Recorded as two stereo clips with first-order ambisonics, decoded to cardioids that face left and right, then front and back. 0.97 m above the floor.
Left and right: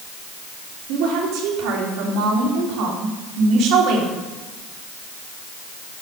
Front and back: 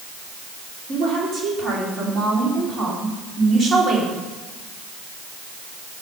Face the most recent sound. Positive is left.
turn(degrees=-115)